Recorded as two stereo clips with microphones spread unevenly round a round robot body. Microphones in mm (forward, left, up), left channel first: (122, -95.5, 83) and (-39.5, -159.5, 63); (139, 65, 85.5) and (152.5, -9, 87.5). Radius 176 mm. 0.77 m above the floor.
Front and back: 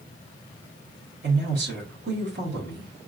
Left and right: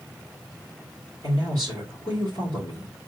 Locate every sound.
1.2 s a man speaking: 165° left, 1.9 m